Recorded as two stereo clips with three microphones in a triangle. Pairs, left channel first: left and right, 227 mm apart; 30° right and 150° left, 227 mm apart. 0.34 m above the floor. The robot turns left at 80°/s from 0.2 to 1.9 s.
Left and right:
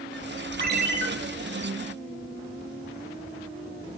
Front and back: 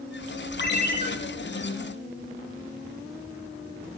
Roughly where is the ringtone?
Ahead right.